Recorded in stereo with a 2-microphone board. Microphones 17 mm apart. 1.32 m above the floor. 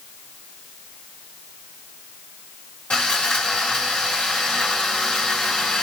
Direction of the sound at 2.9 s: 60° left (ahead or behind).